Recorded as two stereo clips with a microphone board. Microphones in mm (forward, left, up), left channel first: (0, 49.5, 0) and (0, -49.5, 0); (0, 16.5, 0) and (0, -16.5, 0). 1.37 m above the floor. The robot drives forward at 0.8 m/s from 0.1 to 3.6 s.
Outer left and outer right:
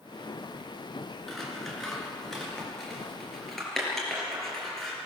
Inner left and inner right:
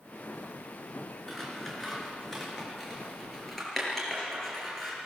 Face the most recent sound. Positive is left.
turn(degrees=0)  # may be behind; listen again after turning